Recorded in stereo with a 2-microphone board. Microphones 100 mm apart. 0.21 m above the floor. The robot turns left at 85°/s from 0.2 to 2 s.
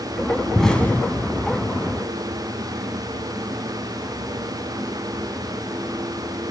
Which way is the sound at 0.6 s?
Centre (ahead or behind).